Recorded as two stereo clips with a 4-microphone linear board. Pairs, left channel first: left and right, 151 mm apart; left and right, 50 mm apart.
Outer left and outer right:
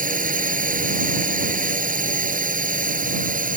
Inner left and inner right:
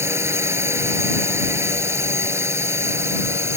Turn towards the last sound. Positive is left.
turn(degrees=-65)  # may be behind; listen again after turning